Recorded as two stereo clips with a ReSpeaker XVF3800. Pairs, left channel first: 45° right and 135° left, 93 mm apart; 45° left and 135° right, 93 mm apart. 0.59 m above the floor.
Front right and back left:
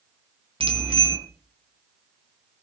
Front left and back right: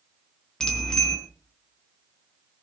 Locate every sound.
0.6 s a bicycle bell: 130° left, 4 m